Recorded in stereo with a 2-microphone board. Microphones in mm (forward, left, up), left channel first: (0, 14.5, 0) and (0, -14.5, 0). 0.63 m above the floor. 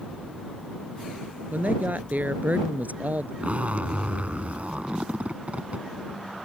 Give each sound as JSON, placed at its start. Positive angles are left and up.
{"t": 1.5, "sound": "a woman speaking", "side_deg": -75}
{"t": 3.4, "sound": "a zipper", "side_deg": -60}